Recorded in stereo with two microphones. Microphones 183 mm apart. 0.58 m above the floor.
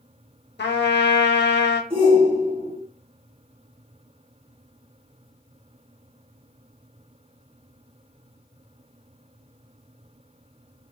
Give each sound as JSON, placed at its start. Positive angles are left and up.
{"t": 0.6, "sound": "a trumpet", "side_deg": 70, "distance_m": 0.7}
{"t": 1.9, "sound": "a shout", "side_deg": -30, "distance_m": 1.7}